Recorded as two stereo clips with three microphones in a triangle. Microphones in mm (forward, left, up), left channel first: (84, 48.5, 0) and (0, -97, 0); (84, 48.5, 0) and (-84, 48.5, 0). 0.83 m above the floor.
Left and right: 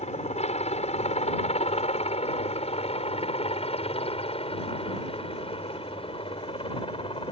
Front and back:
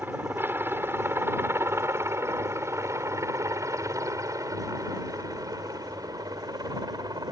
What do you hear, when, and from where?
0.0 s a helicopter: 105° left; by 7.3 s 115° left